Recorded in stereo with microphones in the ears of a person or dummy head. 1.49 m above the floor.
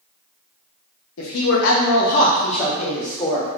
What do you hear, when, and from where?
1.2 s a man speaking: 80° left, 1.1 m; by 3.5 s 20° left (ahead or behind), 2 m